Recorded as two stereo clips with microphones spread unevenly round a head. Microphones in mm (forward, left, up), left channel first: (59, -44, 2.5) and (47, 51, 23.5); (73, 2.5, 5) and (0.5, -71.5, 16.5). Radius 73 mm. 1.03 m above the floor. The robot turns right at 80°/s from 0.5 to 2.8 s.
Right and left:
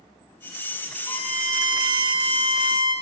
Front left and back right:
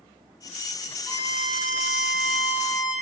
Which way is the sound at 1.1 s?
35° right.